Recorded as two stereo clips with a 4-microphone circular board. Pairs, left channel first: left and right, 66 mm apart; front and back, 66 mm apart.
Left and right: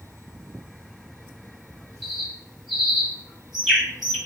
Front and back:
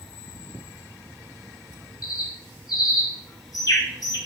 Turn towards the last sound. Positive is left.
turn(degrees=-5)